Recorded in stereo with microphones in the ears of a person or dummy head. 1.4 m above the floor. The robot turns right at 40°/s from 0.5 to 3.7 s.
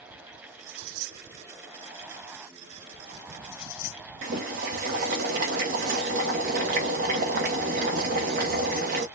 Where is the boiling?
50° right (ahead or behind), 1.1 m.